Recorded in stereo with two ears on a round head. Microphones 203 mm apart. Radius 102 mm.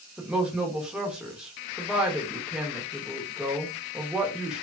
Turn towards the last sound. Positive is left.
turn(degrees=-5)  # may be behind; listen again after turning